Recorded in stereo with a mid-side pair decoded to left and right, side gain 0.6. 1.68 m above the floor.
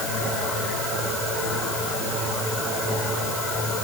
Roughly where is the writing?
No writing in this recording.